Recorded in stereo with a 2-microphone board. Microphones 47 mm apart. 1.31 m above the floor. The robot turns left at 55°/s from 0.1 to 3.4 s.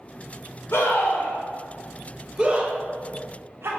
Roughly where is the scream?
Left.